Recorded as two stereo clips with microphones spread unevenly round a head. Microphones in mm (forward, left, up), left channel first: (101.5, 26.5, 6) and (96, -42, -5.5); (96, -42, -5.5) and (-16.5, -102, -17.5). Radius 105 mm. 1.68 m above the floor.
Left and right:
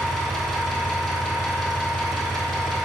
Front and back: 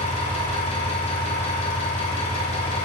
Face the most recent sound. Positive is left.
turn(degrees=10)